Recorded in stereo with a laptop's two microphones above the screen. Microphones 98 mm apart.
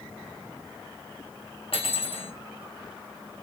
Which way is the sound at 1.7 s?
75° left (ahead or behind).